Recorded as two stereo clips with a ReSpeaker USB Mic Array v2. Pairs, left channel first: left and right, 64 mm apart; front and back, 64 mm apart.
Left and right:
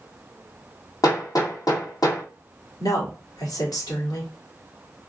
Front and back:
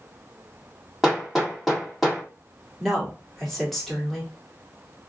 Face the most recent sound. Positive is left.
turn(degrees=85)